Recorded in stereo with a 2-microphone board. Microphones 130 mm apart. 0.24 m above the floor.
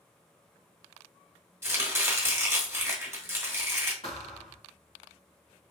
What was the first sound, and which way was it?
Chopping, 20° right (ahead or behind).